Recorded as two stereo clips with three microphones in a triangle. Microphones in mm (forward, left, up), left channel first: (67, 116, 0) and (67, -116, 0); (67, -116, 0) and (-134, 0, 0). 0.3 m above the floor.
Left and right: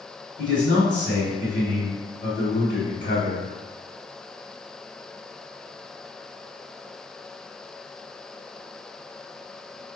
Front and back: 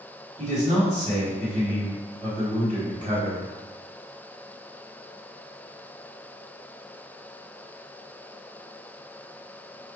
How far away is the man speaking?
About 1.4 m.